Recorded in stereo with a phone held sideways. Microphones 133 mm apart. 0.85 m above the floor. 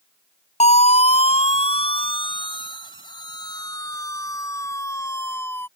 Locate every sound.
0.6 s a siren: 60° left (ahead or behind); by 5.7 s 15° left (ahead or behind)